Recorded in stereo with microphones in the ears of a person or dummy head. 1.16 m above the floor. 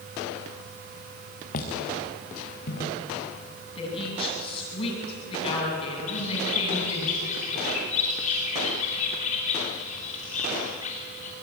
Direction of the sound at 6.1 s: 40° left (ahead or behind).